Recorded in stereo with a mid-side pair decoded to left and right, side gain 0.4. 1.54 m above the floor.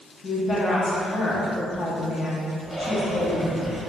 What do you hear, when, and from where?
0.2 s a woman speaking: 45° left, 1.0 m
2.6 s breathing: straight ahead, 1.0 m